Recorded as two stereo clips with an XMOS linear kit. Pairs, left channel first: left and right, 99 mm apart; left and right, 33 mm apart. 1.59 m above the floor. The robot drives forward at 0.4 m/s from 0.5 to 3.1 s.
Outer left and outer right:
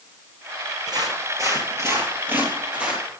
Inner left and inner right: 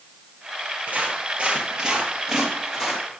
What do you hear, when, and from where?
0.9 s footsteps: 45° right (ahead or behind), 2.5 m; by 3.0 s 10° right (ahead or behind), 2.5 m